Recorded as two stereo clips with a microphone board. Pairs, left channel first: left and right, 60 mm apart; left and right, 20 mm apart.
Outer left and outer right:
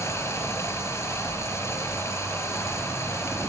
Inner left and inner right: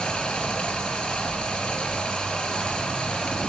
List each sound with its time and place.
0.0 s running water: 50° left (ahead or behind), 5 m